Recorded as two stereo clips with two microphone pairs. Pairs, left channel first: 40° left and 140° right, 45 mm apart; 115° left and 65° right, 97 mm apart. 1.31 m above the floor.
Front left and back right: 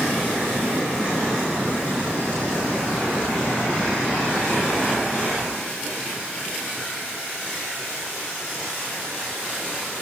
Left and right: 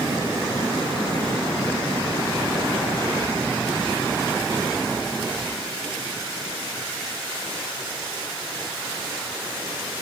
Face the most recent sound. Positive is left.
No sound to turn to.